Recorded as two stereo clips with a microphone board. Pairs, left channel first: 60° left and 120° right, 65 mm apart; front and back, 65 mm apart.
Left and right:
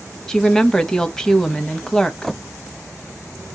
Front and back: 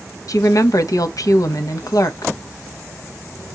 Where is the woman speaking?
20° right, 0.7 m.